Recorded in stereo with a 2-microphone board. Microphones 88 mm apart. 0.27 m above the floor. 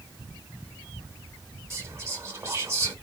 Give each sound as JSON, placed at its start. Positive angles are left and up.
{"t": 1.7, "sound": "whispering", "side_deg": -30, "distance_m": 2.5}